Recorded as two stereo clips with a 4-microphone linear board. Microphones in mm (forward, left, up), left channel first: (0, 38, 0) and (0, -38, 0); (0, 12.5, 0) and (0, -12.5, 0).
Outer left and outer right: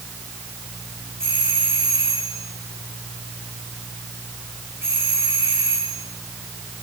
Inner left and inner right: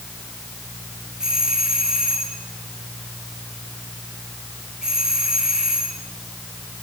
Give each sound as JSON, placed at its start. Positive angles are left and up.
{"t": 1.2, "sound": "a doorbell", "side_deg": -35, "distance_m": 6.5}